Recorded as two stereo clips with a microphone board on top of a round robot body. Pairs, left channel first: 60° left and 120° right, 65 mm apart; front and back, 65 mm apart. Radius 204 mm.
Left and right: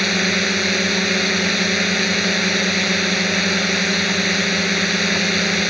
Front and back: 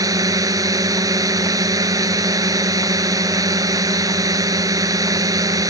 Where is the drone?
150° left.